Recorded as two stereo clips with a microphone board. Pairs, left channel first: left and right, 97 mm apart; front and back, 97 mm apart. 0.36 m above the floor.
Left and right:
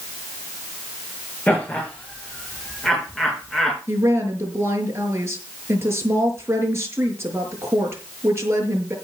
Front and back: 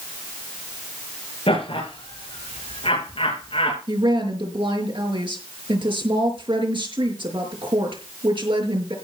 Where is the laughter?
15° left, 5 m; by 3.8 s 5° left, 4 m.